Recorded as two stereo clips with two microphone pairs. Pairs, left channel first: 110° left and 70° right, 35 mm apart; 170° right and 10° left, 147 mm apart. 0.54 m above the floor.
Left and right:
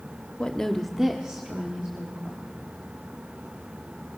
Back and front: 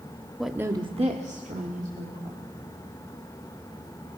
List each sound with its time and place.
0.4 s a woman speaking: 100° left, 0.9 m; by 2.4 s 15° right, 3 m